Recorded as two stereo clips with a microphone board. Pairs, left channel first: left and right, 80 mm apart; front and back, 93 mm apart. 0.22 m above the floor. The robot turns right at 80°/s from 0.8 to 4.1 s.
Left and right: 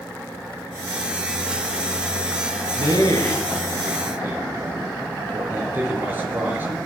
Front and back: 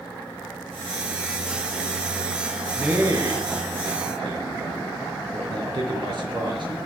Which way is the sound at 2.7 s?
95° left.